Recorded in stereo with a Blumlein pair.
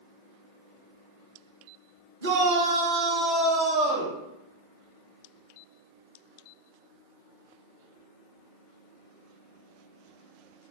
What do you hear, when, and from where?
2.2 s a shout: 70° right, 1.1 m; by 4.2 s 25° left, 1.0 m